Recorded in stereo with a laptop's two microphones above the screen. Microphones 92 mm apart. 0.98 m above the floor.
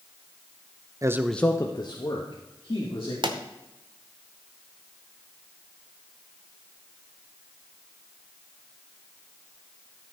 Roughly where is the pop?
Right.